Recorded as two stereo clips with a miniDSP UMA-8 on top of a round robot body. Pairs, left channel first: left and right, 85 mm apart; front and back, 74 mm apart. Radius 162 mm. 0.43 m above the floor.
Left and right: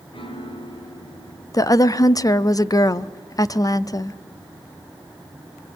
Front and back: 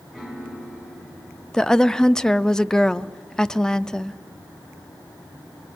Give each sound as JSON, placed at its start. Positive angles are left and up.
{"t": 0.1, "sound": "a piano", "azimuth_deg": 85, "distance_m": 4.5}
{"t": 1.5, "sound": "a woman speaking", "azimuth_deg": 75, "distance_m": 0.9}